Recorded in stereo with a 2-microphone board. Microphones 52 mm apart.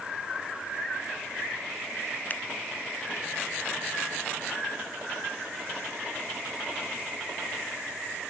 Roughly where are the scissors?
Left.